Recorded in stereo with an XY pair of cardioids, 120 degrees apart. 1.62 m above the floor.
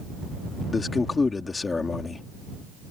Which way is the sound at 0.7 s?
25° left.